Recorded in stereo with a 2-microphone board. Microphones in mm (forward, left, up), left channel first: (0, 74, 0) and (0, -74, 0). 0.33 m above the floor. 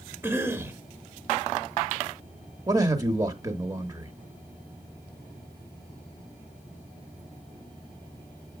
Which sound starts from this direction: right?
A man speaking, at 2.7 s.